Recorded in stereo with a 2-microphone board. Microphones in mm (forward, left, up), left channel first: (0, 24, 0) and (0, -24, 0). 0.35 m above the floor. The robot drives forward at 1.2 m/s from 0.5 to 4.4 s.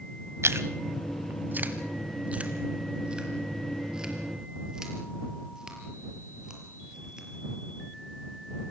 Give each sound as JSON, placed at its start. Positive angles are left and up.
{"t": 0.4, "sound": "chewing", "side_deg": -65, "distance_m": 1.3}